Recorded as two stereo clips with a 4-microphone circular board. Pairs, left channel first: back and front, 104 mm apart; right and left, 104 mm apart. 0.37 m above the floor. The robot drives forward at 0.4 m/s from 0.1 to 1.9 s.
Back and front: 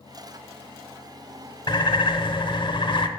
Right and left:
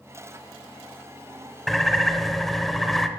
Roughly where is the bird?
Behind.